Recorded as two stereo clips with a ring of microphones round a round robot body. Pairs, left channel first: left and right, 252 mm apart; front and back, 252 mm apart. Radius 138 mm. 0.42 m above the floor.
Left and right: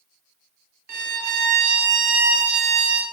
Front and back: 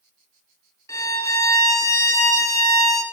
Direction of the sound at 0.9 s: 80° right.